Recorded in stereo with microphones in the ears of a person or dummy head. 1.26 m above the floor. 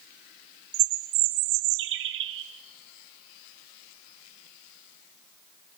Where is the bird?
70° right (ahead or behind), 1.7 m.